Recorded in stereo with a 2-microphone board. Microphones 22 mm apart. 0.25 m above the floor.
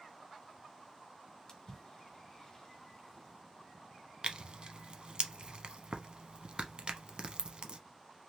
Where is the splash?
30° left (ahead or behind), 1.2 m.